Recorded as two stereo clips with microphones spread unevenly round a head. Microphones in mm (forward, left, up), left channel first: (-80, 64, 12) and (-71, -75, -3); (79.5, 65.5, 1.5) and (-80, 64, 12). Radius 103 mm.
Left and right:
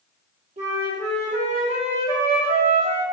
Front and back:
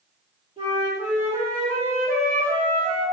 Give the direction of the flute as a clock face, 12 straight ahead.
4 o'clock.